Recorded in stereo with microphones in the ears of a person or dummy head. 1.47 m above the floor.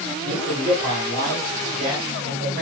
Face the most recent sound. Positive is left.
turn(degrees=-40)  # may be behind; listen again after turning